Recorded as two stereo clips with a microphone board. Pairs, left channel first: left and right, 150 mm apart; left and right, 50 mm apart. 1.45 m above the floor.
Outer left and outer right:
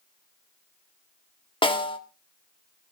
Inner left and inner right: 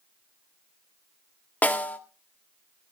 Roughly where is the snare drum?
Left.